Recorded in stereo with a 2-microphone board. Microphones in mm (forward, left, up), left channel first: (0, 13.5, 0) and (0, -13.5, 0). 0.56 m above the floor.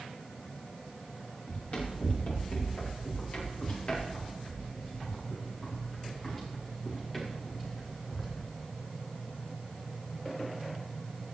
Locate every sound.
1.5 s running footsteps: 65° left (ahead or behind), 5.5 m; by 8.3 s centre (ahead or behind), 4.5 m